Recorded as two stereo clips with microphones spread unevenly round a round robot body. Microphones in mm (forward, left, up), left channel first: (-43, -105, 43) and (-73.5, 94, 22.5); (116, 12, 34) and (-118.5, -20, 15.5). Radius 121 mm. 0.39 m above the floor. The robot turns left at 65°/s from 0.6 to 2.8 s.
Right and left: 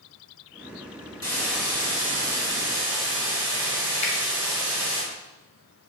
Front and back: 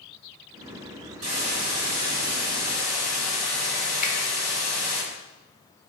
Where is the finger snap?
40° right, 0.7 m.